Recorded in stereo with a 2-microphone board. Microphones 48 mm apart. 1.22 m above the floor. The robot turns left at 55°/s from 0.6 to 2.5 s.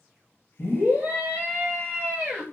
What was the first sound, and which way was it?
A scream, 20° right.